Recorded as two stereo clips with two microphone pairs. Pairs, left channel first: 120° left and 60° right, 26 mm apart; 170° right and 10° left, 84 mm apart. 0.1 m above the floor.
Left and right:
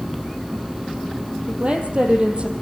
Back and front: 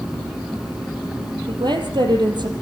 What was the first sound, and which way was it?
A woman speaking, 10° right.